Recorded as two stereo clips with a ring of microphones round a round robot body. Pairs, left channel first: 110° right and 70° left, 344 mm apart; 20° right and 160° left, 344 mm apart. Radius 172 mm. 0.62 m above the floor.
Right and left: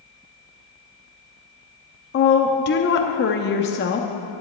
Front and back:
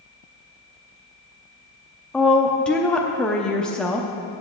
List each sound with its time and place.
2.1 s a woman speaking: 105° right, 0.6 m